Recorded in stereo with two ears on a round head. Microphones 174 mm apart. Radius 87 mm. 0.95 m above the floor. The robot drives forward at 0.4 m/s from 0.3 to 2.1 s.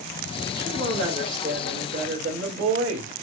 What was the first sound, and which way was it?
A woman speaking, 55° right (ahead or behind).